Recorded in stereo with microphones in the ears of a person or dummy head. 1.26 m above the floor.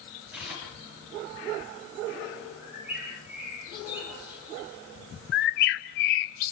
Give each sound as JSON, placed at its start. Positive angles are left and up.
{"t": 0.3, "sound": "tearing paper", "side_deg": -5, "distance_m": 8.5}
{"t": 2.6, "sound": "a bird", "side_deg": -10, "distance_m": 7.5}
{"t": 5.3, "sound": "a bird", "side_deg": 50, "distance_m": 0.7}